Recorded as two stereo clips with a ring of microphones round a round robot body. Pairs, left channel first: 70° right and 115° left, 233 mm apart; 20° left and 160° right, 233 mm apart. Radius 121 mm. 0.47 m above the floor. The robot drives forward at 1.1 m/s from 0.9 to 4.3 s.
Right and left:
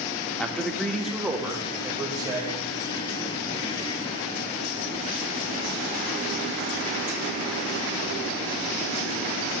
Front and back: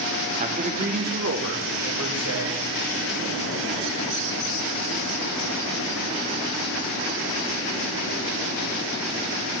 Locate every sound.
0.4 s a man speaking: 150° right, 0.8 m; by 2.6 s 175° right, 2.5 m